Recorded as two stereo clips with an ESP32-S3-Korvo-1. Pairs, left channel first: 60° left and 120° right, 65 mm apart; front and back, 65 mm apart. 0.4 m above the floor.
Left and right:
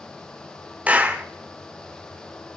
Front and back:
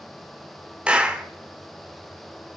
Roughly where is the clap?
Behind right.